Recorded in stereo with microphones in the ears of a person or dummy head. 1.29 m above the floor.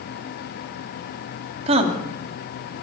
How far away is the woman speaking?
About 2 m.